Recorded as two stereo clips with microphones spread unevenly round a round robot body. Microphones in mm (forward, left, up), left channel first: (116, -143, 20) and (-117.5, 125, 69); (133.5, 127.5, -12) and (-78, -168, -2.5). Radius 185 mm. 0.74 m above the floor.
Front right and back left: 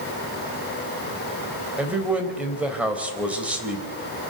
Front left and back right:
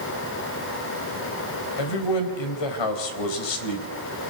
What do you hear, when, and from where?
1.8 s a man speaking: 45° left, 3.5 m